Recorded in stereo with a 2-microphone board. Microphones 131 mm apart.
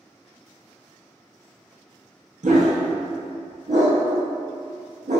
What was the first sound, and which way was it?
A dog barking, 75° right (ahead or behind).